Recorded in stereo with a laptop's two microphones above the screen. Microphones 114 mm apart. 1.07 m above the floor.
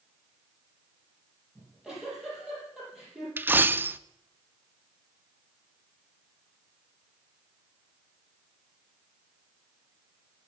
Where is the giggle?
5° right (ahead or behind), 5 m.